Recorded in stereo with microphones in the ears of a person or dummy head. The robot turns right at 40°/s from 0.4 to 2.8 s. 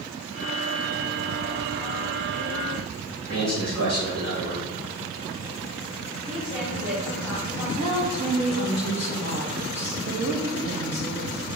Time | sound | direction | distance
3.3 | a man speaking | 65° right (ahead or behind) | 3 m
6.2 | a woman speaking | 5° right (ahead or behind) | 3.5 m
7.8 | a woman speaking | 35° right (ahead or behind) | 1.8 m